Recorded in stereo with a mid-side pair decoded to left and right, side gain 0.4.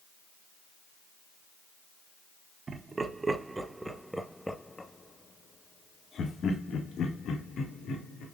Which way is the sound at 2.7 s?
45° right.